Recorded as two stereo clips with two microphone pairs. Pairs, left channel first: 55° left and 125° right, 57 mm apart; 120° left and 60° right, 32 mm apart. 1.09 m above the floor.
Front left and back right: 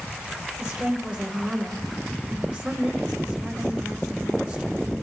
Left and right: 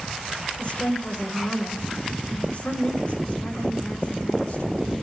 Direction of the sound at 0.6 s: 150° left.